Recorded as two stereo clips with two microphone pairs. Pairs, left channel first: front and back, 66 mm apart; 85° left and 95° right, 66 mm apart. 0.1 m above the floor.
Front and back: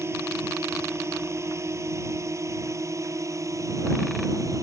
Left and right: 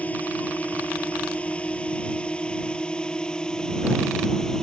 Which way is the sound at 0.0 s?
145° left.